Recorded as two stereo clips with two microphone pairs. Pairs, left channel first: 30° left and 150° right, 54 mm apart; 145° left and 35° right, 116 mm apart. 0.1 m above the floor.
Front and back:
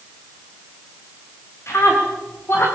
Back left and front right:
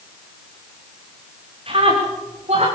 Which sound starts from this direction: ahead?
A scream, at 1.7 s.